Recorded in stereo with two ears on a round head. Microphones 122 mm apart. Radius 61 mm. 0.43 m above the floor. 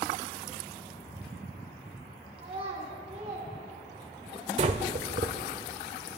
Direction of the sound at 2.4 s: 45° right (ahead or behind).